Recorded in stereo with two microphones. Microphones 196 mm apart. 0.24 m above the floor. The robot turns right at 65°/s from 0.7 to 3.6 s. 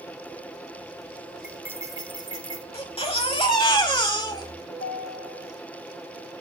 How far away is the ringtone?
About 5.5 m.